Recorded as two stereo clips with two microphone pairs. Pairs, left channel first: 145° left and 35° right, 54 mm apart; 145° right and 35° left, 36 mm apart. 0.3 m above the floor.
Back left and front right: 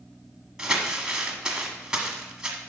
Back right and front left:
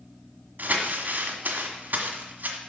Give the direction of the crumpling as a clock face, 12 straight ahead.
10 o'clock.